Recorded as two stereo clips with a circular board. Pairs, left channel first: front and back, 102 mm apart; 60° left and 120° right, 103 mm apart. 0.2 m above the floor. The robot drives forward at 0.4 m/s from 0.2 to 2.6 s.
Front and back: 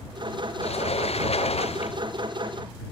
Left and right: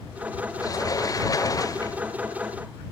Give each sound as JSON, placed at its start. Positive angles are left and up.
{"t": 0.6, "sound": "a sliding door", "azimuth_deg": 5}